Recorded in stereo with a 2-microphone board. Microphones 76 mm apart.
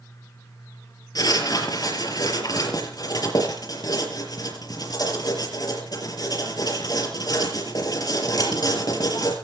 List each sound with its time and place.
1.1 s writing: 55° left (ahead or behind), 5 m